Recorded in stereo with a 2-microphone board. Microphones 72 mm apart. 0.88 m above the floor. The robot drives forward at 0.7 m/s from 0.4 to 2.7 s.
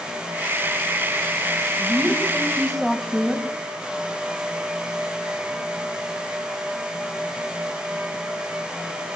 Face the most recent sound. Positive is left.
turn(degrees=0)  # may be behind; listen again after turning